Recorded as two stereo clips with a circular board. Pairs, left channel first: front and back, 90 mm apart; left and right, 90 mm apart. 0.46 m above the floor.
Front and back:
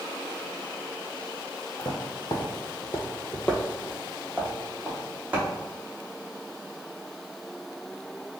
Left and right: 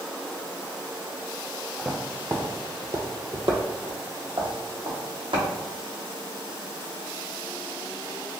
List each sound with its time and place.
1.8 s footsteps: 5° right, 0.7 m; by 5.5 s 105° right, 1.6 m